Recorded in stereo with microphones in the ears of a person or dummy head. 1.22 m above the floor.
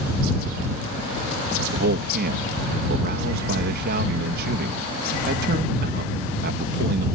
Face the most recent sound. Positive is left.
turn(degrees=-55)  # may be behind; listen again after turning